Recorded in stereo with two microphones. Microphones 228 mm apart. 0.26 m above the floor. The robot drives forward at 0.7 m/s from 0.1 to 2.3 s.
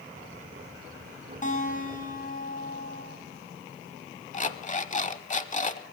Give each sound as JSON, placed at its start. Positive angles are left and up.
{"t": 1.4, "sound": "a guitar", "side_deg": 35, "distance_m": 2.5}
{"t": 4.3, "sound": "an alarm clock", "side_deg": 35, "distance_m": 0.7}